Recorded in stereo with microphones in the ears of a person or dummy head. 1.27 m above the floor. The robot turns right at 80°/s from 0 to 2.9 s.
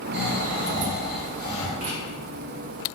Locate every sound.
0.1 s snoring: 75° right, 1.1 m; by 1.7 s 55° left, 1.1 m
1.8 s writing: 45° right (ahead or behind), 1.2 m; by 2.0 s 55° right (ahead or behind), 1.2 m